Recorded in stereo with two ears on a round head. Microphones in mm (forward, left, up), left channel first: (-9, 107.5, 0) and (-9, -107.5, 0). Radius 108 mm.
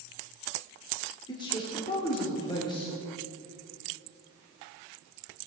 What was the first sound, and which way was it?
A man speaking, 20° left (ahead or behind).